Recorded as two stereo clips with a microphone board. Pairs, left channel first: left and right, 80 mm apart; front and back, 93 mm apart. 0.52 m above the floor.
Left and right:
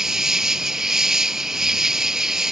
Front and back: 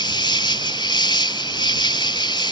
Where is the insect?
5° right.